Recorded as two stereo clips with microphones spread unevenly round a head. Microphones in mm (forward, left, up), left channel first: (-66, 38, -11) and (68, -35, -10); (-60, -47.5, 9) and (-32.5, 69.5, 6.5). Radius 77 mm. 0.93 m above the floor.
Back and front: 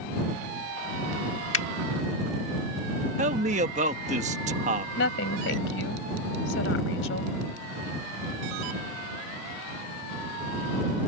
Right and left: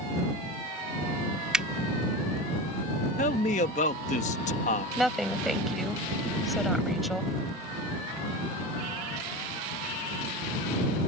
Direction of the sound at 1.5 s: 160° left.